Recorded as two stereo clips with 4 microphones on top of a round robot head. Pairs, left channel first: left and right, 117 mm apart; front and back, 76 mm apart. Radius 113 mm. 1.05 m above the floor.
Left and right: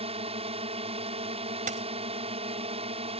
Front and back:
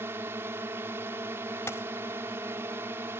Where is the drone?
120° right.